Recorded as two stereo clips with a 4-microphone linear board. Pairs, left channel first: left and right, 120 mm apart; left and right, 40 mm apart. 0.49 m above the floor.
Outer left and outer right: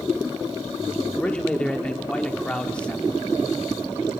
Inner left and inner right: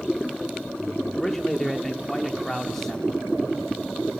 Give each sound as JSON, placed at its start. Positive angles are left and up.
{"t": 1.1, "sound": "a man speaking", "side_deg": 10, "distance_m": 1.3}